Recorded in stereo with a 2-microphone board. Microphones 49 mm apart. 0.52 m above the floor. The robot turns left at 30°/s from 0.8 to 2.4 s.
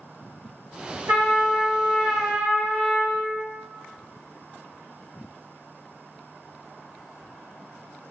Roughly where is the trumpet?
Ahead right.